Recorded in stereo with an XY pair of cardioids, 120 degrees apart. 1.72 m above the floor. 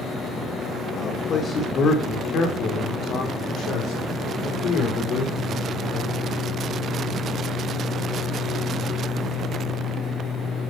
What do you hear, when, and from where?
1.0 s a man speaking: 50° left, 2 m; by 6.7 s 80° left, 6 m